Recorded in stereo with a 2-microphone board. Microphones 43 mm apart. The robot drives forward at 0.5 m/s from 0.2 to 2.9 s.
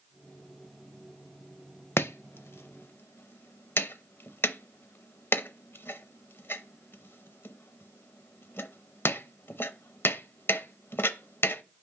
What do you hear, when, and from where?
2.0 s chopping: 70° left (ahead or behind), 0.6 m; by 11.6 s 65° left (ahead or behind), 0.7 m